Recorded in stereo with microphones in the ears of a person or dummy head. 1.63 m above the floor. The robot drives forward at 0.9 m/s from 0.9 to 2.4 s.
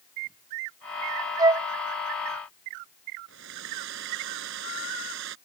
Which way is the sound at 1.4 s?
25° right (ahead or behind).